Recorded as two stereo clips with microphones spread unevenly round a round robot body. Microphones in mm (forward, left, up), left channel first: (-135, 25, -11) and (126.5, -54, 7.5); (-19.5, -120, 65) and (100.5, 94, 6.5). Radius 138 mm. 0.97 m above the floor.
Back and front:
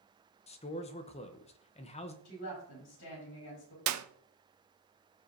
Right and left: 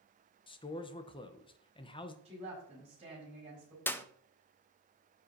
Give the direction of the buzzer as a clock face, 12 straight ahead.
No buzzer in this recording.